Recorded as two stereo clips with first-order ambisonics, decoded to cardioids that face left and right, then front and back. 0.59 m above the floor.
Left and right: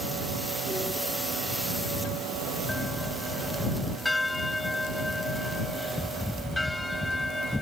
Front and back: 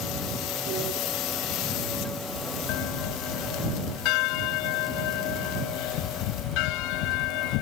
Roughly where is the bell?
Ahead.